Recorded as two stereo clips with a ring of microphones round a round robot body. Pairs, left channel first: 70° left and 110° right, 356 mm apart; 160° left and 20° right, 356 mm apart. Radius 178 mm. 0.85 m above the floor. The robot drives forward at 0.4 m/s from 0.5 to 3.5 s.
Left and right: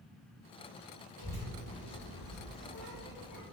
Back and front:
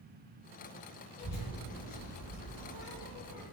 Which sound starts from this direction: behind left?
A child speaking, at 1.2 s.